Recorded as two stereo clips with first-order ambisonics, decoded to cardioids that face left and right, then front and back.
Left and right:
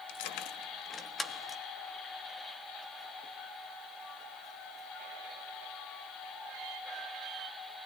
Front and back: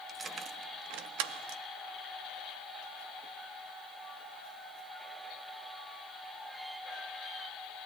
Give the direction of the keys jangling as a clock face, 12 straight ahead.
9 o'clock.